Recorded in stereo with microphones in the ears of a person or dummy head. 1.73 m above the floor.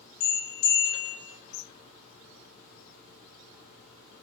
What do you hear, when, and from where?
0.2 s a bell: 85° left, 1.2 m